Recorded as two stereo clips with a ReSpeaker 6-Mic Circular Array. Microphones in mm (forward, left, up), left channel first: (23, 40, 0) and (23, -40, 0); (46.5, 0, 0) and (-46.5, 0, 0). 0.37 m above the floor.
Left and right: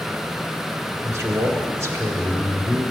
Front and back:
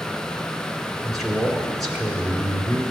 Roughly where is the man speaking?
Right.